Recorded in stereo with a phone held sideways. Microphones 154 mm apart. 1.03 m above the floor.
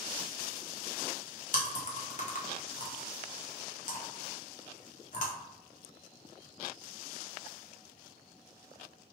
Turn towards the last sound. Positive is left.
turn(degrees=50)  # may be behind; listen again after turning